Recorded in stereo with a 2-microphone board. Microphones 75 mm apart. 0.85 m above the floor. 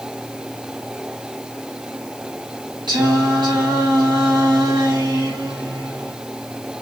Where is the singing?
85° right, 5 m.